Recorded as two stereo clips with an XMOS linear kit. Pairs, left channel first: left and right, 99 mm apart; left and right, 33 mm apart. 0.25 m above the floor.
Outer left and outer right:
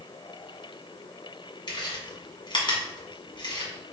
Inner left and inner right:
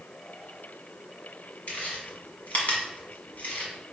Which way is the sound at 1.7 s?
60° left (ahead or behind).